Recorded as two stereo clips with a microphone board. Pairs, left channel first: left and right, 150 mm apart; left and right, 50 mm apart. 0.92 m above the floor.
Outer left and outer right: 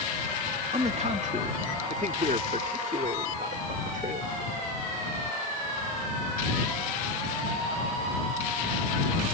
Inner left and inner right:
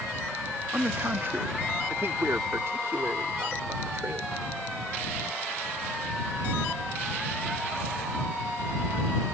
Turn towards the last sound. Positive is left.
turn(degrees=-70)  # may be behind; listen again after turning